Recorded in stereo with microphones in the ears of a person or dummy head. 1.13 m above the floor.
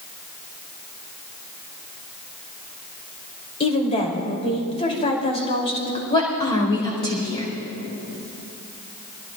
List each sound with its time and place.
3.6 s a woman speaking: 35° left (ahead or behind), 3 m
6.1 s a woman speaking: 30° left (ahead or behind), 4.5 m